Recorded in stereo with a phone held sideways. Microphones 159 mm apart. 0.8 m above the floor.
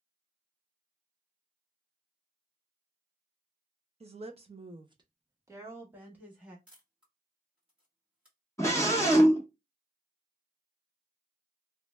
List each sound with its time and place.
4.0 s a woman speaking: 40° right (ahead or behind), 0.6 m; by 6.6 s 5° right (ahead or behind), 1.2 m
6.7 s a camera shutter: 5° right (ahead or behind), 1.3 m
8.6 s a scream: 20° left (ahead or behind), 0.6 m